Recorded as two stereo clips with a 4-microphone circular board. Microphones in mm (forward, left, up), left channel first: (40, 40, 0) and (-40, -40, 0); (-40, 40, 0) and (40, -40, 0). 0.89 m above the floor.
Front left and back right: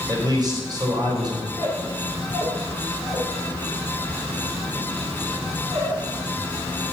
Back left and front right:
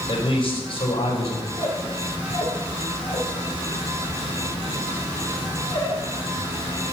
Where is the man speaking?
175° left, 4 m.